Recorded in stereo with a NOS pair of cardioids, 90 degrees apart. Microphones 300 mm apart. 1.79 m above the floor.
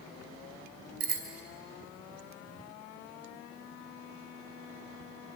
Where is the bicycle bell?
55° right, 4.5 m.